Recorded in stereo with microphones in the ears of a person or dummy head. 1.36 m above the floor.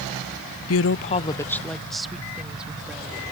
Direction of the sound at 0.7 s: 70° left (ahead or behind).